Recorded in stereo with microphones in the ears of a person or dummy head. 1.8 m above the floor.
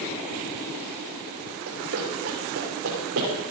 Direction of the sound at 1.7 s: 65° right (ahead or behind).